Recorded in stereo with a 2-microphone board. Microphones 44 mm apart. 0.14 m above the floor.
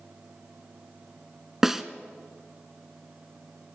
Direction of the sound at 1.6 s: 10° right (ahead or behind).